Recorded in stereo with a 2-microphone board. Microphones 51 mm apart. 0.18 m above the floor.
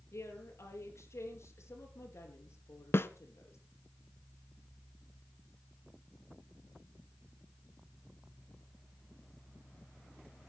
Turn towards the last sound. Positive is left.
turn(degrees=55)  # may be behind; listen again after turning